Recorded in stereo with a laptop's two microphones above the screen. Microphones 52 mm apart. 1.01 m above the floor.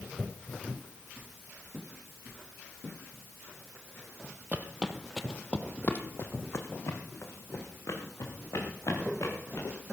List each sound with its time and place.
4.5 s footsteps: 30° right (ahead or behind), 1.4 m; by 9.7 s 70° left (ahead or behind), 6 m